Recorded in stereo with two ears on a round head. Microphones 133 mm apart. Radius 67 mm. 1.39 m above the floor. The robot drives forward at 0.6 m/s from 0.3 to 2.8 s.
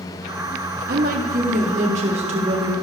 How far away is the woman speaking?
About 1.2 m.